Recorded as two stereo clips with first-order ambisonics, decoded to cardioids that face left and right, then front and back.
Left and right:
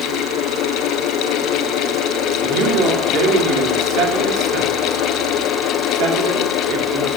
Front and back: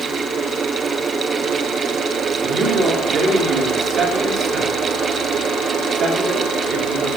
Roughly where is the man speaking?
Behind right.